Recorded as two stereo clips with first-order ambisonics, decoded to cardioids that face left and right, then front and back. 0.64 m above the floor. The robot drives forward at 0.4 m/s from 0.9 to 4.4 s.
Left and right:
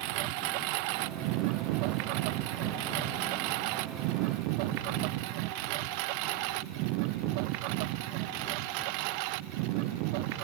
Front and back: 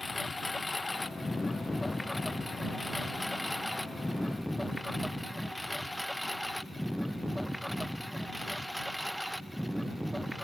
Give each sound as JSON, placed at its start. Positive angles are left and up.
{"t": 0.0, "sound": "a lawn mower", "azimuth_deg": -85}